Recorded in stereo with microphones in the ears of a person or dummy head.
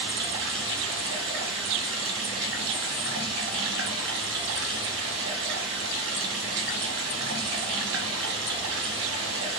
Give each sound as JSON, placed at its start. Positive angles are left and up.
{"t": 0.0, "sound": "running water", "side_deg": -70, "distance_m": 1.1}